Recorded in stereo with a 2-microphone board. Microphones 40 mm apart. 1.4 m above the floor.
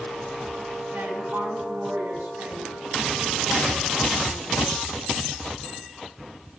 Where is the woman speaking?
85° right, 8.5 m.